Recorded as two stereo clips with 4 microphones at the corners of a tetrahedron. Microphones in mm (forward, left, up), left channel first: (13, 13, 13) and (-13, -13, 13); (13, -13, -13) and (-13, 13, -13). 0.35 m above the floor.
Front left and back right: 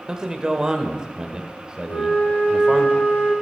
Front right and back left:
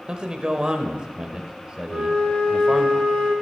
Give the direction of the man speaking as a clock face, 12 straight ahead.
6 o'clock.